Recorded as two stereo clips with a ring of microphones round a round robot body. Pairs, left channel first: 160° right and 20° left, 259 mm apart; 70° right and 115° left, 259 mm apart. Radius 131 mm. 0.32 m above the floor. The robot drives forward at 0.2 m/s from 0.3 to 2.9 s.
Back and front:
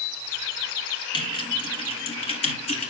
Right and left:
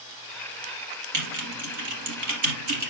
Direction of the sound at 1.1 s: 130° left.